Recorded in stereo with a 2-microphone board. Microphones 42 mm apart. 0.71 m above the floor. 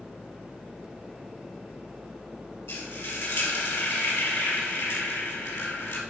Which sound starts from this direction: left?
Frying, at 2.7 s.